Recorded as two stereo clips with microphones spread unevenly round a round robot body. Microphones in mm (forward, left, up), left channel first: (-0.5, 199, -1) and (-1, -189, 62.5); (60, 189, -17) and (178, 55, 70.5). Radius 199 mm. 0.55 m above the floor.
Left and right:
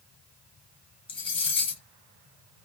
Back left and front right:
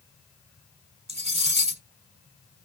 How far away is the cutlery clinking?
About 1.4 m.